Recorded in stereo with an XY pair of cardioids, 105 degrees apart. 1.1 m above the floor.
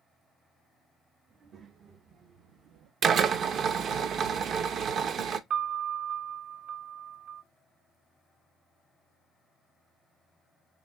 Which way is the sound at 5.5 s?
70° right.